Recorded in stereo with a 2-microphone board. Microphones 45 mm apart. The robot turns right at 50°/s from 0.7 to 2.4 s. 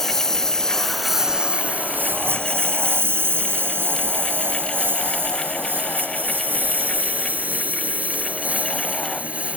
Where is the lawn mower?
5° left (ahead or behind); by 9.6 s 30° right (ahead or behind).